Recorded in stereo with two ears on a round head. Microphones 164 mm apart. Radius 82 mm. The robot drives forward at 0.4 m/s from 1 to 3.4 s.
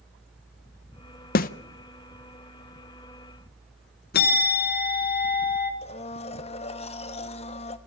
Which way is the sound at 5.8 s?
35° left (ahead or behind).